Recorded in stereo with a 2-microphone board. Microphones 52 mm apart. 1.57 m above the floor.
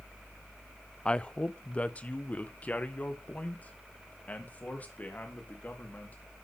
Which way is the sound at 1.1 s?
20° left (ahead or behind).